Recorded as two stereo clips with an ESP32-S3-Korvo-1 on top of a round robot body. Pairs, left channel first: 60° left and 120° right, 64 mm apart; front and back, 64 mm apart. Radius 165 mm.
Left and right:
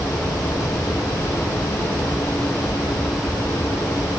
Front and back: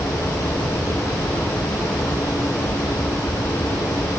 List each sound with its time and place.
Only background noise.